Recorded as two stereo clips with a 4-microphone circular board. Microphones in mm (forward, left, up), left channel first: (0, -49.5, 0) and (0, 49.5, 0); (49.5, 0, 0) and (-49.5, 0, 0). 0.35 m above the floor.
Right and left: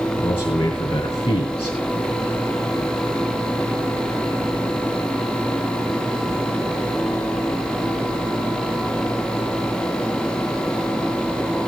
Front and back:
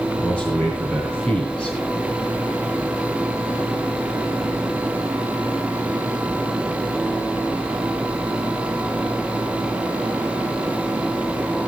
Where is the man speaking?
80° right, 3 m.